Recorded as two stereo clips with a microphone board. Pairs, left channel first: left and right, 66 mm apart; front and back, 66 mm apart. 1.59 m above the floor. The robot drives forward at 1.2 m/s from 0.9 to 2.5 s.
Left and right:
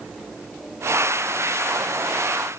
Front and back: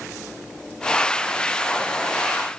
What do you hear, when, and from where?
Only background noise.